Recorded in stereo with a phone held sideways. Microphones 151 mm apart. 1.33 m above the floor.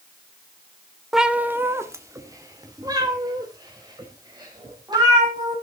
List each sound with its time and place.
1.1 s a cat meowing: centre (ahead or behind), 0.7 m; by 5.5 s 30° right (ahead or behind), 5 m